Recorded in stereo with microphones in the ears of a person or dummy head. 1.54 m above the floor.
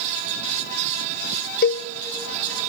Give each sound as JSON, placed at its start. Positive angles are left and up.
{"t": 1.6, "sound": "a cowbell", "side_deg": 55, "distance_m": 0.5}